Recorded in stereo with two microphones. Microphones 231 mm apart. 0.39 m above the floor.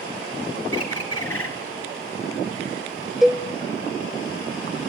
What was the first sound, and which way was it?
A bird, 75° left (ahead or behind).